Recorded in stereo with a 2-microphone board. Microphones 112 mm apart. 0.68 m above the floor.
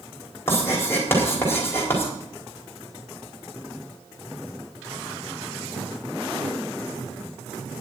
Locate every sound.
0.5 s writing: 20° left (ahead or behind), 4.5 m